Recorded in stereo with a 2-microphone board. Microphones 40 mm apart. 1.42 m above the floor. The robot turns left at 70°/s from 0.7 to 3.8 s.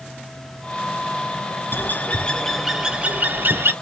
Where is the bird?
60° left, 0.5 m; by 3.7 s 80° right, 0.5 m.